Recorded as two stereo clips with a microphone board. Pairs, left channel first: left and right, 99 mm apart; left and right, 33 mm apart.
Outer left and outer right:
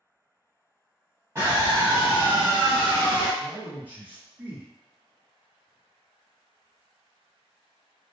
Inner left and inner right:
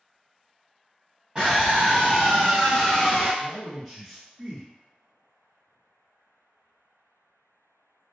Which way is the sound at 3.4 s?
15° right (ahead or behind).